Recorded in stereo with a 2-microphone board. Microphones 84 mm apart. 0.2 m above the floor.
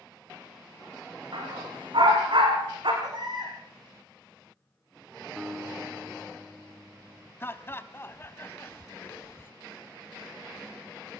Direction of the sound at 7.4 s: 25° left (ahead or behind).